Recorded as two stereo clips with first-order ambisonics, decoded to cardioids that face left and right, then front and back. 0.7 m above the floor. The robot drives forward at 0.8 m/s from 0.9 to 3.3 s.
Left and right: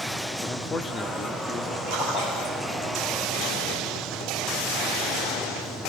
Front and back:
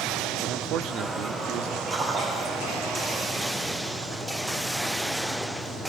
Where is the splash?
110° left, 7.5 m; by 2.9 s 120° left, 8 m.